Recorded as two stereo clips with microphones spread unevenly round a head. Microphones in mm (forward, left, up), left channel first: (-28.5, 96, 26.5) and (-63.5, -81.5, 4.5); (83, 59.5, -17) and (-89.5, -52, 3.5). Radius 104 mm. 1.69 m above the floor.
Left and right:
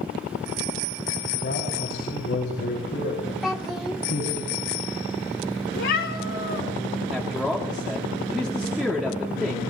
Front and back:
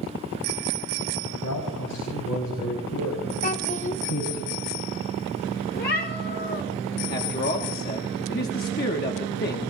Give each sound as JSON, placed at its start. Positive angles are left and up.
{"t": 1.4, "sound": "a man speaking", "azimuth_deg": 40, "distance_m": 4.0}
{"t": 3.4, "sound": "a child speaking", "azimuth_deg": -5, "distance_m": 0.9}
{"t": 5.7, "sound": "a cat meowing", "azimuth_deg": 80, "distance_m": 3.5}
{"t": 7.1, "sound": "a man speaking", "azimuth_deg": -15, "distance_m": 1.5}